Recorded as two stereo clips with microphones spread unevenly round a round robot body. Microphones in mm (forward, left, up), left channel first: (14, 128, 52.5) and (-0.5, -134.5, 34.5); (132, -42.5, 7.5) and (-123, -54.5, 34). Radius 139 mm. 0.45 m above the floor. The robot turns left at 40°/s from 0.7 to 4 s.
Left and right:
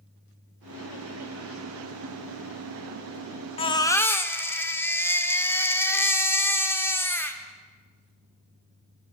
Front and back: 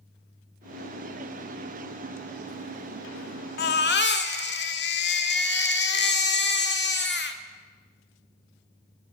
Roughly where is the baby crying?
Ahead.